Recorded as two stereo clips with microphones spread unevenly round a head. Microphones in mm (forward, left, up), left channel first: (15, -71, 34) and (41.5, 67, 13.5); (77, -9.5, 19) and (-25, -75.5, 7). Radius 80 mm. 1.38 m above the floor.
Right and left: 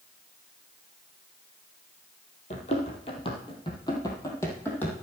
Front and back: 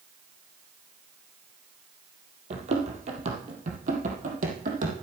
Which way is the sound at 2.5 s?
125° right.